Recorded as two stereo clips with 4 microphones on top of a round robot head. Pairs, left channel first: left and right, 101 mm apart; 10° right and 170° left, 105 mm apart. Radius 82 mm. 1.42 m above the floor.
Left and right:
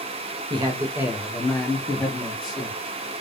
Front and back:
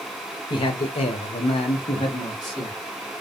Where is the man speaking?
50° right, 0.6 m; by 2.8 s 45° left, 1.1 m.